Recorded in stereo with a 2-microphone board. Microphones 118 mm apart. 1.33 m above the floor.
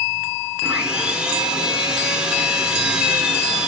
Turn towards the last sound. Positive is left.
turn(degrees=-5)  # may be behind; listen again after turning